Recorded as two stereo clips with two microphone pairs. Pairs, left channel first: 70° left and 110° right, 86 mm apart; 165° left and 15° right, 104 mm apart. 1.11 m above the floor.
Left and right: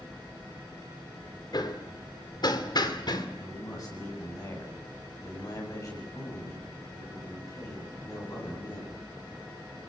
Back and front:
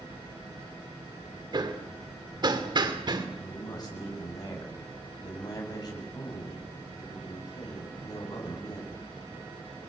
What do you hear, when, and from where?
1.5 s hammering: 30° left, 2.5 m
3.4 s a man speaking: 115° left, 8.5 m